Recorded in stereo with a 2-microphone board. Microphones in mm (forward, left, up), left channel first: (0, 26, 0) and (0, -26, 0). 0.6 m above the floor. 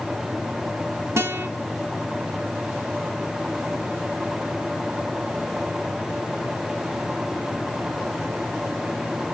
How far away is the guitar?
About 2 m.